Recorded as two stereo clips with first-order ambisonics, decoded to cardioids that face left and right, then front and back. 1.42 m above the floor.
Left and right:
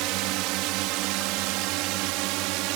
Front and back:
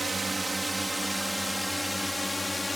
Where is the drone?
100° right; by 2.8 s 80° right.